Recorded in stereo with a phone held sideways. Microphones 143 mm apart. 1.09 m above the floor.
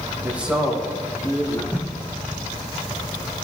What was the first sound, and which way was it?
A man speaking, 15° right (ahead or behind).